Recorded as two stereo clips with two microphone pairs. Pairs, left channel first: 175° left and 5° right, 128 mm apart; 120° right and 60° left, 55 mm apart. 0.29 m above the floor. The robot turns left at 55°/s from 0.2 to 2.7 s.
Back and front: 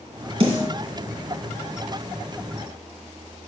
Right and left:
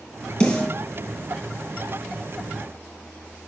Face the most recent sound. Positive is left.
turn(degrees=-175)